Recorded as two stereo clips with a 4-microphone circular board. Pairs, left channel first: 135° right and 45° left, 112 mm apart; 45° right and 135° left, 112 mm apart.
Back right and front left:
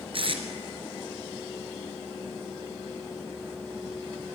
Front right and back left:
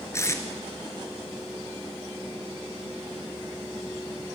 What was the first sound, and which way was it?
Tape being pulled, 15° left.